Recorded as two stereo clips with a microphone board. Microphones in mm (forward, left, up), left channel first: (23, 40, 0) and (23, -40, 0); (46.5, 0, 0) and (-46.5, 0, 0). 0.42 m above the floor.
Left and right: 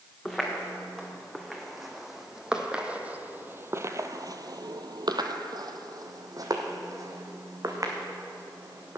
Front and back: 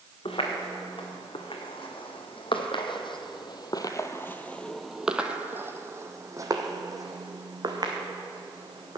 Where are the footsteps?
10° left, 2.5 m; by 9.0 s 140° right, 2.5 m.